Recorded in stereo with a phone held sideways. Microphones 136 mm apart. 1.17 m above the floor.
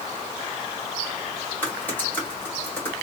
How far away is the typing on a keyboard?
About 2 m.